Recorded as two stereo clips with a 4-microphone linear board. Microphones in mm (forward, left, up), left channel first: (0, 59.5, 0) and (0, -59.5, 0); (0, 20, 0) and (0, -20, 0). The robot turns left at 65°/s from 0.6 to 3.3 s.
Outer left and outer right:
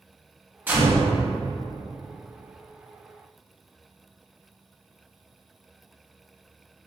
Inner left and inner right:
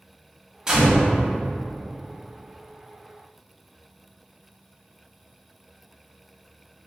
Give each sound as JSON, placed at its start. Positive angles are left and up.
{"t": 0.7, "sound": "a gunshot", "side_deg": -15, "distance_m": 1.7}